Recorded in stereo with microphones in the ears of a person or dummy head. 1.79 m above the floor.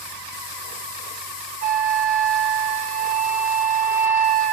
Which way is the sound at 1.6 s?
40° right (ahead or behind).